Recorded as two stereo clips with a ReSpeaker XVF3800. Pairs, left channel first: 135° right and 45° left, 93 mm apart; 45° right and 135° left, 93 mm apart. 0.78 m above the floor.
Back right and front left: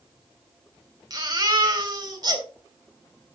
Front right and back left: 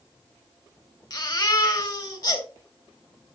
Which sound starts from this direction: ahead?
A baby crying, at 1.1 s.